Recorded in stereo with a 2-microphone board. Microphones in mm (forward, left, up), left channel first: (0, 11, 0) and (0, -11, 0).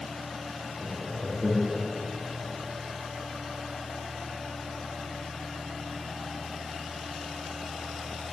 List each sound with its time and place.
0.8 s laughter: 25° right (ahead or behind), 1.0 m